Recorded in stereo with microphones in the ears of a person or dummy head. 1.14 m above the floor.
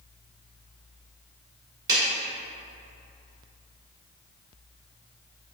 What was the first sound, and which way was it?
A clap, 25° right (ahead or behind).